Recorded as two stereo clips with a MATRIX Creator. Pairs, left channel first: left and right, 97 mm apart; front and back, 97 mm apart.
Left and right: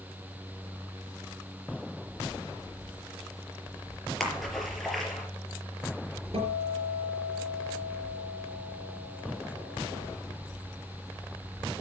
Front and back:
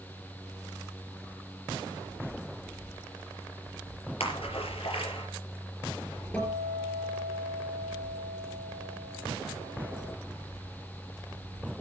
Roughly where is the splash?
Ahead.